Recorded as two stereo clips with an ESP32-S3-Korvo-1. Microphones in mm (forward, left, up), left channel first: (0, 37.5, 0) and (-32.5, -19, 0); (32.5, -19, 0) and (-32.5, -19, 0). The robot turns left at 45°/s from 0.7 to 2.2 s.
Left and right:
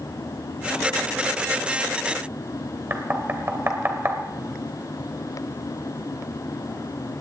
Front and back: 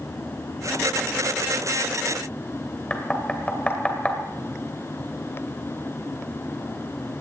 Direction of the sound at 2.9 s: 70° right.